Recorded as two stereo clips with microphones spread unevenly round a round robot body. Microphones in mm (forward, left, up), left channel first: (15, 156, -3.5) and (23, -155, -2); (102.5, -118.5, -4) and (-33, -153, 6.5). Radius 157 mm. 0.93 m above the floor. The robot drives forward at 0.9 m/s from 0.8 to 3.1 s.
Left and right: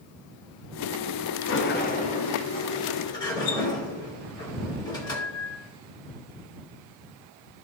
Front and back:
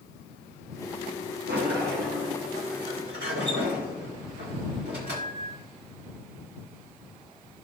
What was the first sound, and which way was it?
A sliding door, 145° left.